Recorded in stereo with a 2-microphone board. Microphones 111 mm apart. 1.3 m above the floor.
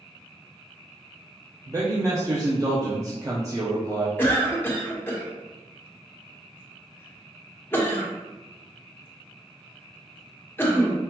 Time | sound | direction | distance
1.7 | a man speaking | 30° right (ahead or behind) | 0.6 m
4.2 | a cough | 20° left (ahead or behind) | 1.2 m